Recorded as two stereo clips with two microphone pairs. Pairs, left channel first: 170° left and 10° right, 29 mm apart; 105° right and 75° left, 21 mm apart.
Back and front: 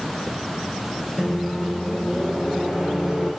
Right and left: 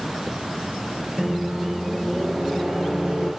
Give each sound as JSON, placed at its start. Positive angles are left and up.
{"t": 1.2, "sound": "a microwave", "azimuth_deg": 55, "distance_m": 5.5}